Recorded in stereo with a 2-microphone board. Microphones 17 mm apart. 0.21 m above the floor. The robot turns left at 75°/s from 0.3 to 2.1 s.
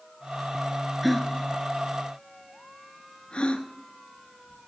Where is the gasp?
5° right (ahead or behind), 1.0 m; by 4.7 s 70° left (ahead or behind), 1.0 m.